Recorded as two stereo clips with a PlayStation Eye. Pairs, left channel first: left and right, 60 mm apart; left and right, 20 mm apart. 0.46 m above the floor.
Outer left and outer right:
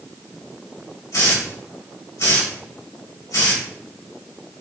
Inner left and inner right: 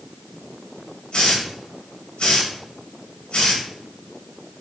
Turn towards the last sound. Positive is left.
turn(degrees=65)  # may be behind; listen again after turning